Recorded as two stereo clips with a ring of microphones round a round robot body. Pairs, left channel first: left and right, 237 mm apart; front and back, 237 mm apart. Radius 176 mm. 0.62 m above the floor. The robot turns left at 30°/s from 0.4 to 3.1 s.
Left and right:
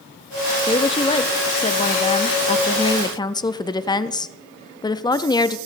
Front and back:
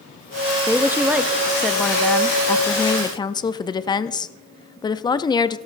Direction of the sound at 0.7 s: 115° left.